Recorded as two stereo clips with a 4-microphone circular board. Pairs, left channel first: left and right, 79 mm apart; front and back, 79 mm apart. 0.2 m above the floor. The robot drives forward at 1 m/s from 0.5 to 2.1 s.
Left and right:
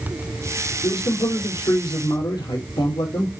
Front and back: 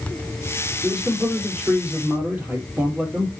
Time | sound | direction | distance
0.8 | a man speaking | 90° left | 4 m